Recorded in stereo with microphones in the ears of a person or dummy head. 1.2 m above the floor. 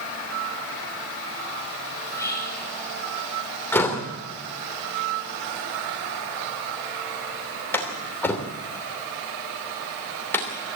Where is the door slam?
15° left (ahead or behind), 2.5 m.